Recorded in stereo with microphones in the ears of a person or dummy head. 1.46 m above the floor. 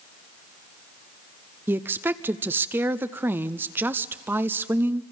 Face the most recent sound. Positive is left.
turn(degrees=-10)  # may be behind; listen again after turning